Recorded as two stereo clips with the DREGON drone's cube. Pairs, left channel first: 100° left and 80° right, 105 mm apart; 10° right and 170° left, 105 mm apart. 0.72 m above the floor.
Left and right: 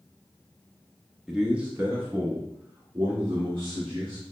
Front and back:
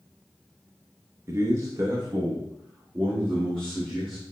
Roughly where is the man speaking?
Behind.